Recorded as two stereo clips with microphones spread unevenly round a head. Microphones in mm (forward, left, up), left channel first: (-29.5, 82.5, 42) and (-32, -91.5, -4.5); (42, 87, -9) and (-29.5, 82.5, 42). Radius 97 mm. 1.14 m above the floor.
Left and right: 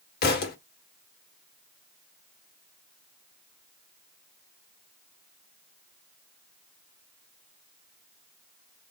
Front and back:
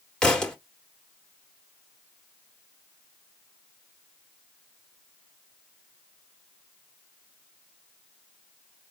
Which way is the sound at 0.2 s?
100° left.